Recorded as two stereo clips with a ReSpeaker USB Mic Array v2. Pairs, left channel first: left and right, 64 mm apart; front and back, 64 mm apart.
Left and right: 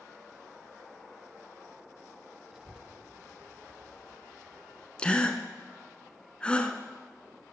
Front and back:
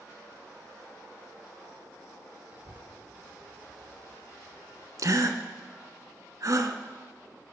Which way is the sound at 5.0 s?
160° left.